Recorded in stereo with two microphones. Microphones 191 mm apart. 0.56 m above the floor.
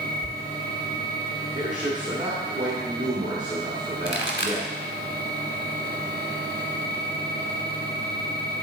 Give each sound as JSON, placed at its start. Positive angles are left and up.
{"t": 0.2, "sound": "a thud", "side_deg": -40, "distance_m": 0.7}
{"t": 1.6, "sound": "a man speaking", "side_deg": -40, "distance_m": 1.5}
{"t": 4.0, "sound": "a pop", "side_deg": 70, "distance_m": 1.3}